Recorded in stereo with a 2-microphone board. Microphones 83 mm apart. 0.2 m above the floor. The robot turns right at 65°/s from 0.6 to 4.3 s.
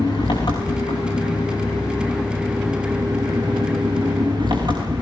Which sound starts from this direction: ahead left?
An engine running, at 0.0 s.